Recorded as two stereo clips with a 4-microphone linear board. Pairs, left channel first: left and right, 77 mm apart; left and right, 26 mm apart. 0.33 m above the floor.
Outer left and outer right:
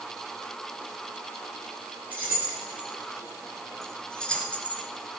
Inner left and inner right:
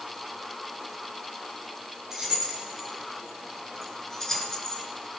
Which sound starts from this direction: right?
Keys jangling, at 2.1 s.